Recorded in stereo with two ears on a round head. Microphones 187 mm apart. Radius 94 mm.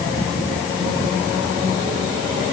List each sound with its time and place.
Only background noise.